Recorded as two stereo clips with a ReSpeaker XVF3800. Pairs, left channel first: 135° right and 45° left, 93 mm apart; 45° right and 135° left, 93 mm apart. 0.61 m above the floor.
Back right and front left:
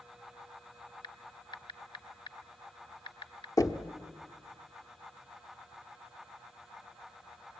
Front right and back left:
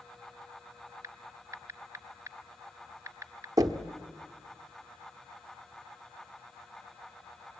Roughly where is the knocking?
Behind.